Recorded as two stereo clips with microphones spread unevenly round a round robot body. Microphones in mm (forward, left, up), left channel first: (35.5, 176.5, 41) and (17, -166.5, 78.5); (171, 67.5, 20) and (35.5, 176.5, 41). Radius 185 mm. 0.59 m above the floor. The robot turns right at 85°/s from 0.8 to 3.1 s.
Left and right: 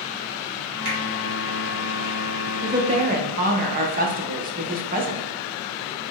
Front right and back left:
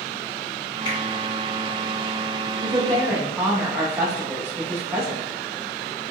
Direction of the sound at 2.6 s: 175° left.